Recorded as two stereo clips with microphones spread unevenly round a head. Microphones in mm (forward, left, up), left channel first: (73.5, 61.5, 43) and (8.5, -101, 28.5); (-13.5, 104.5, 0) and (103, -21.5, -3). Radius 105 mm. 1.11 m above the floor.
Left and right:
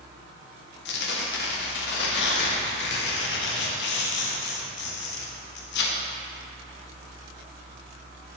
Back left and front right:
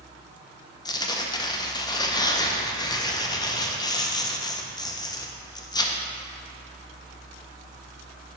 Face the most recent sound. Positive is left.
turn(degrees=70)